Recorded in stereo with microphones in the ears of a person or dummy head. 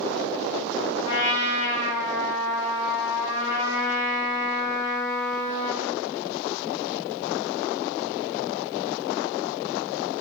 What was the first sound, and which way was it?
A trumpet, 60° left (ahead or behind).